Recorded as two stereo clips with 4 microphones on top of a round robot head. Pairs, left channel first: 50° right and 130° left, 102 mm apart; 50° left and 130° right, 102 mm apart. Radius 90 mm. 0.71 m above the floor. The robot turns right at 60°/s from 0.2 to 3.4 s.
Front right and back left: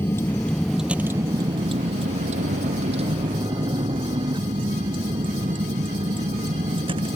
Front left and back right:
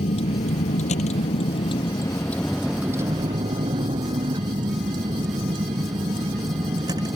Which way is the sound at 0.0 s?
25° left.